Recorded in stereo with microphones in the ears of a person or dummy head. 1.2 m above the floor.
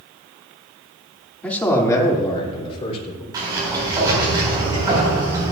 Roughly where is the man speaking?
Centre.